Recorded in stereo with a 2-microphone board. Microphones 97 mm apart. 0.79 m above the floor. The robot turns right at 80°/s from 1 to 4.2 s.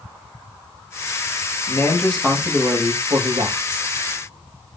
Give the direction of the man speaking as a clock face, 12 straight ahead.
8 o'clock.